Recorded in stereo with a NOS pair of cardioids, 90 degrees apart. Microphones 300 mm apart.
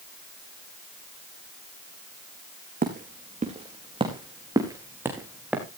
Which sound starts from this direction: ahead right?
Footsteps, at 2.8 s.